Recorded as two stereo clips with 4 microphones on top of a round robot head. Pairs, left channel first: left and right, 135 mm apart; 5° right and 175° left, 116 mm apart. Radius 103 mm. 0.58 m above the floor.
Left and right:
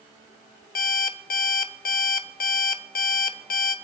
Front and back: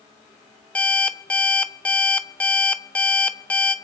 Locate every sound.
0.8 s an alarm clock: 75° left, 0.8 m